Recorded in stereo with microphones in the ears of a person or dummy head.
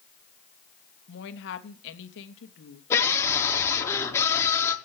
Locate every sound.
1.1 s a woman speaking: 65° left (ahead or behind), 2.5 m
2.9 s a scream: 10° left (ahead or behind), 4.5 m